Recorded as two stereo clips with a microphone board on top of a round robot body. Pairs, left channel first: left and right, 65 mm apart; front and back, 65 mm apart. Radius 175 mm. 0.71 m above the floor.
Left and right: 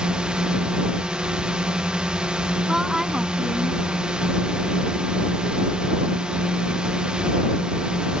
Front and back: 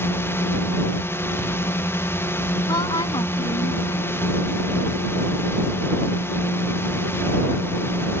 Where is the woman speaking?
5° right.